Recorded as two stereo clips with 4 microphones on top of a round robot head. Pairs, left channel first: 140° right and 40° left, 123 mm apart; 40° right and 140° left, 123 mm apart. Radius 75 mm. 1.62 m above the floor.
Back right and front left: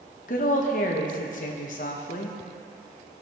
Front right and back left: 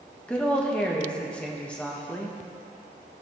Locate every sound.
0.3 s a woman speaking: 120° right, 1.5 m